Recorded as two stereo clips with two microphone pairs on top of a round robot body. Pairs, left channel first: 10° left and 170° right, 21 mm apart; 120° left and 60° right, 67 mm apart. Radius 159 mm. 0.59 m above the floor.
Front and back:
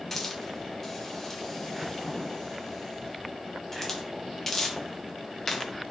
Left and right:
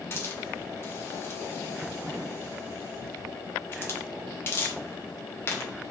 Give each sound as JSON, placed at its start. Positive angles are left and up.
{"t": 0.1, "sound": "a hiss", "azimuth_deg": 75, "distance_m": 0.9}